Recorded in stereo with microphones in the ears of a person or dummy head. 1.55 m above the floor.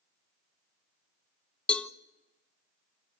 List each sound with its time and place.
1.7 s a cowbell: 5° left (ahead or behind), 1.0 m